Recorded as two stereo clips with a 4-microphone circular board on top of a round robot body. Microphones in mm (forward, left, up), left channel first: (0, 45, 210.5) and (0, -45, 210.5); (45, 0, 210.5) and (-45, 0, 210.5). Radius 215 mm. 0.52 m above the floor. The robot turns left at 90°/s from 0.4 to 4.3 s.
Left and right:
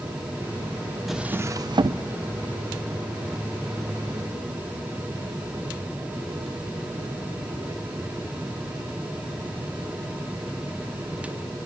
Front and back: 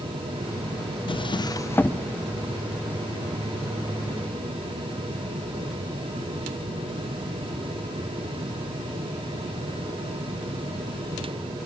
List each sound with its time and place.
1.1 s a drawer: straight ahead, 0.7 m; by 2.0 s 85° right, 0.7 m